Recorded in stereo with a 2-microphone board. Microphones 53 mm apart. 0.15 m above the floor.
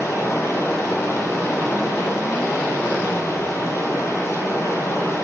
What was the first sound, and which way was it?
Running water, 70° left (ahead or behind).